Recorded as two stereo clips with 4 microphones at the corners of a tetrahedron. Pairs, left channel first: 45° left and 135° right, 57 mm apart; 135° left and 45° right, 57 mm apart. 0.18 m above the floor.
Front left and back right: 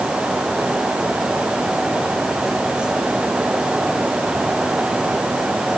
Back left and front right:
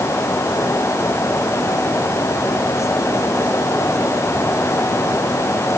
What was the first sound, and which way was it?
Only background noise.